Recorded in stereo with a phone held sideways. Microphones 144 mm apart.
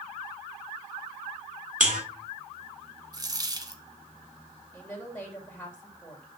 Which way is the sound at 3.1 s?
30° right (ahead or behind).